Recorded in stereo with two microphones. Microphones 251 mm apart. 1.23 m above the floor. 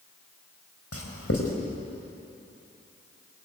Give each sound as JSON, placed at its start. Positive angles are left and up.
{"t": 0.9, "sound": "writing", "side_deg": 75, "distance_m": 4.0}